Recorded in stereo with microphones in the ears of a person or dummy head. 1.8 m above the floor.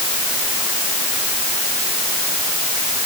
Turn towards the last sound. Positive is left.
No sound to turn to.